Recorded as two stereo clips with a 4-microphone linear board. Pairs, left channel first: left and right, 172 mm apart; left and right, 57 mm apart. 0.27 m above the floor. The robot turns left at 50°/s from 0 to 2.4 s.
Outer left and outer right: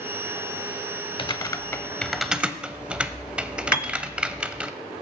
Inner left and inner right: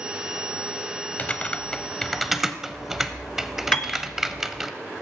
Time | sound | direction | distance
1.2 | typing on a keyboard | 30° left (ahead or behind) | 0.6 m
3.7 | a piano | 25° left (ahead or behind) | 0.8 m